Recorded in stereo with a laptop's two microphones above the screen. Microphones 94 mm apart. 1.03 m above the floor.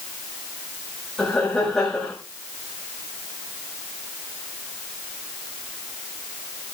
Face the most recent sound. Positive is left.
turn(degrees=10)  # may be behind; listen again after turning